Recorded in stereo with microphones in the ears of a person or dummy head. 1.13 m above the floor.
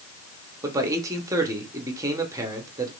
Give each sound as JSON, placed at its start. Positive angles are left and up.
{"t": 0.6, "sound": "a man speaking", "side_deg": -10, "distance_m": 0.9}